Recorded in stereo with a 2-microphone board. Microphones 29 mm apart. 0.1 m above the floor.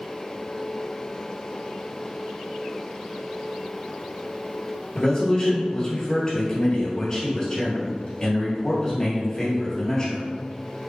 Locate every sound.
5.0 s a man speaking: 25° left (ahead or behind), 1.9 m